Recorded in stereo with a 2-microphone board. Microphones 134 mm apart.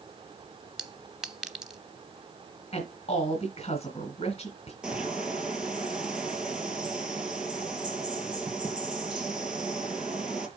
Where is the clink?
5° right (ahead or behind), 0.7 m.